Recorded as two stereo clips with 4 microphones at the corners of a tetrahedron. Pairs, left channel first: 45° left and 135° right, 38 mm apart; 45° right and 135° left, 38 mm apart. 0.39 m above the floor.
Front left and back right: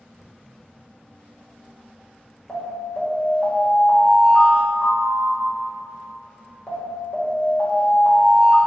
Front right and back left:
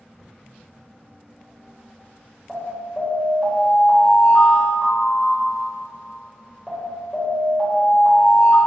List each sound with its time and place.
2.5 s an alarm: 35° left, 1.3 m